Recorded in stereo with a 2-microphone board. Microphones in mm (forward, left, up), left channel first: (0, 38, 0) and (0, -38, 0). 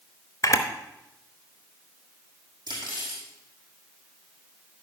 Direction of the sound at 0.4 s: 45° left (ahead or behind).